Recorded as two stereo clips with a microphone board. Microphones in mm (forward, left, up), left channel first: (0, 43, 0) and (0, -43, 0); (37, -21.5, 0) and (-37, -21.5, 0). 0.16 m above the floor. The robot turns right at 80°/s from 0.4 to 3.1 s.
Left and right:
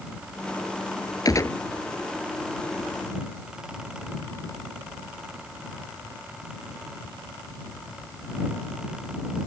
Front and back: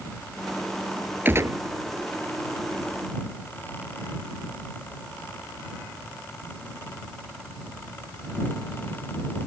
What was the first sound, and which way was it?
A gunshot, 125° left.